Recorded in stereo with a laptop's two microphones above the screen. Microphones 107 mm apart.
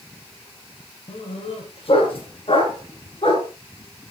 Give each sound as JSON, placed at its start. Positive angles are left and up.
{"t": 1.1, "sound": "a dog barking", "side_deg": 65, "distance_m": 5.5}